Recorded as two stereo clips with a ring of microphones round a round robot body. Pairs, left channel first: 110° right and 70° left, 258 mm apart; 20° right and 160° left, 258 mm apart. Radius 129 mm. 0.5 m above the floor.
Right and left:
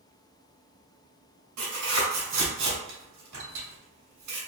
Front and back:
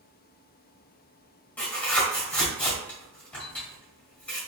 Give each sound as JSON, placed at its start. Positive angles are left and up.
{"t": 1.6, "sound": "tearing paper", "azimuth_deg": 60, "distance_m": 1.6}